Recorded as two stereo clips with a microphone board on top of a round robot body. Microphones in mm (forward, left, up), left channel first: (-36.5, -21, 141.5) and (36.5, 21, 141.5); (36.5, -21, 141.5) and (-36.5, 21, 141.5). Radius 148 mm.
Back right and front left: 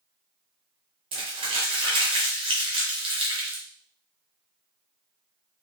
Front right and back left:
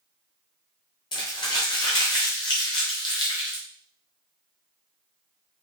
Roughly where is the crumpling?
Ahead.